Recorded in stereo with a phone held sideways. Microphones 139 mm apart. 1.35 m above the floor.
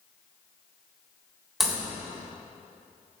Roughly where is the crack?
Centre.